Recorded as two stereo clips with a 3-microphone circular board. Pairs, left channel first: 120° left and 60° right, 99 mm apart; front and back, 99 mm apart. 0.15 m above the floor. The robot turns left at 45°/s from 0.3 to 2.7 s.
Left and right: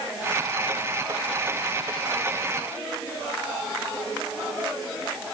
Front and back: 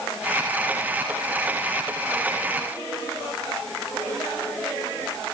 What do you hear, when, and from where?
Only background noise.